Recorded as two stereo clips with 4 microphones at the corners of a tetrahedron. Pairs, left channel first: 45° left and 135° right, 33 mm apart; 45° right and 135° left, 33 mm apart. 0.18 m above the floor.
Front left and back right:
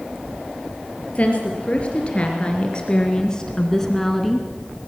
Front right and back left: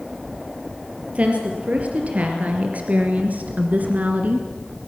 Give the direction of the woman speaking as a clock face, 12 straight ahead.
9 o'clock.